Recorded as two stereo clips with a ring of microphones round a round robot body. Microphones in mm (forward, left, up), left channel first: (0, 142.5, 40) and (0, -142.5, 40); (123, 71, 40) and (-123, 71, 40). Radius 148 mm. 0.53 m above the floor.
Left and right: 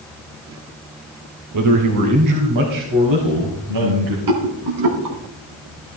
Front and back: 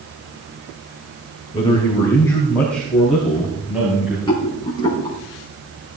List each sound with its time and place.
1.5 s a man speaking: 70° right, 2.5 m; by 4.2 s 95° right, 4.5 m
4.3 s a rattle: 75° right, 3.5 m